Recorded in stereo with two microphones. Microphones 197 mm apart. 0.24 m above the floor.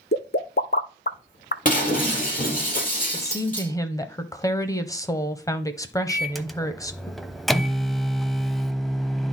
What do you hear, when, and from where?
0.1 s a pop: 55° left (ahead or behind), 0.6 m
1.6 s breaking glass: 45° left (ahead or behind), 4.5 m
3.1 s a woman speaking: 15° left (ahead or behind), 1.0 m
6.1 s a microwave: centre (ahead or behind), 0.8 m